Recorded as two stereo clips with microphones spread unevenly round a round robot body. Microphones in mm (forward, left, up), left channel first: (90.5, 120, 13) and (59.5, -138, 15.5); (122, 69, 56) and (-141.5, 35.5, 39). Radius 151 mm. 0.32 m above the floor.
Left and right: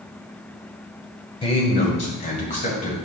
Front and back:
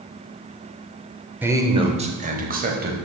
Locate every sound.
1.4 s a man speaking: 120° left, 0.9 m; by 2.9 s 145° left, 1.6 m